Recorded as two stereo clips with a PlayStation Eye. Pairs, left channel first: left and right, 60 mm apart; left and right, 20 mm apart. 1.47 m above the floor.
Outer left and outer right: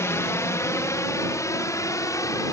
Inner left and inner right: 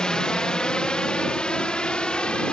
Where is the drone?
55° left (ahead or behind); by 2.5 s 65° left (ahead or behind).